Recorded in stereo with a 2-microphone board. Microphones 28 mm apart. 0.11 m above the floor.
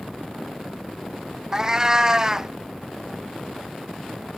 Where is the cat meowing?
25° right (ahead or behind).